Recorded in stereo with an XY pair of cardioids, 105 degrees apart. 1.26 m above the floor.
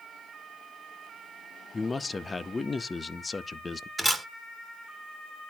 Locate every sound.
1.7 s a man speaking: 25° left, 0.7 m
4.0 s a camera shutter: 5° right, 1.8 m